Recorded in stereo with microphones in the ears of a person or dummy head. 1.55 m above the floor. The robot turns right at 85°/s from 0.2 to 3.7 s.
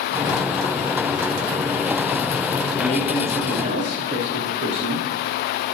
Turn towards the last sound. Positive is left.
turn(degrees=-130)